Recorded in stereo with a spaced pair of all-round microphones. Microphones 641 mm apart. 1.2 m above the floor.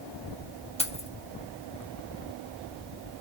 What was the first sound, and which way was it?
Keys jangling, 10° left (ahead or behind).